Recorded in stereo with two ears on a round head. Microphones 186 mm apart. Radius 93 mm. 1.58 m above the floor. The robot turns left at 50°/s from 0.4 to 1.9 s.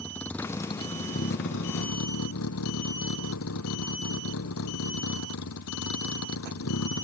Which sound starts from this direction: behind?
A vehicle, at 0.0 s.